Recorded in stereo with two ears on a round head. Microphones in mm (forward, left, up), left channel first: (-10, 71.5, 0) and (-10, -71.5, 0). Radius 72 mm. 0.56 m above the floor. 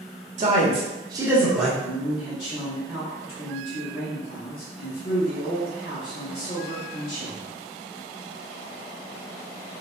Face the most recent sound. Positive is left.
turn(degrees=35)  # may be behind; listen again after turning